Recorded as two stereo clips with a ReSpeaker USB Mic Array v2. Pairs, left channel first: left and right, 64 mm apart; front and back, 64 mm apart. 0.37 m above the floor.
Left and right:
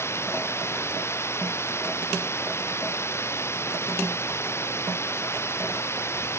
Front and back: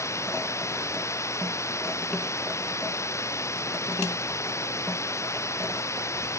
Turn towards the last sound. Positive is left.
turn(degrees=45)